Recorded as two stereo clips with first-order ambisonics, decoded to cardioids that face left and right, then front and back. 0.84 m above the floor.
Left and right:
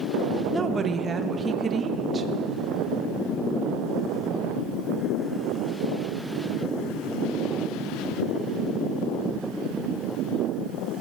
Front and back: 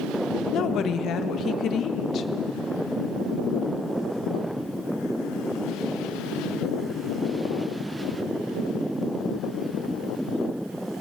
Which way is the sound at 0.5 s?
30° right.